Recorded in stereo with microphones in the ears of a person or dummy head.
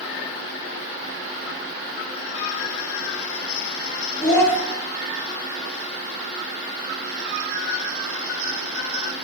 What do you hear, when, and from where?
4.2 s a child speaking: 25° left (ahead or behind), 1.8 m